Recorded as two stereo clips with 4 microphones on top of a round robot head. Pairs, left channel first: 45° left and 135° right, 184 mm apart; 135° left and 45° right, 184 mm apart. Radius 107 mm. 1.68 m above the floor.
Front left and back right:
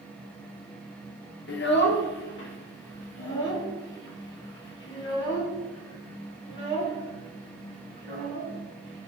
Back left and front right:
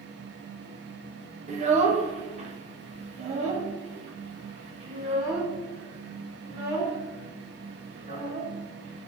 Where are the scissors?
No scissors in this recording.